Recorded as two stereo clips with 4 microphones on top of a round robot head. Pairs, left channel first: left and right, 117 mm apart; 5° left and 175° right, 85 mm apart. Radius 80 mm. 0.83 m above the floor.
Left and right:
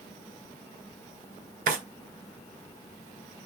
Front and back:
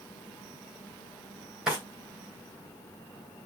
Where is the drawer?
90° right, 2.5 m.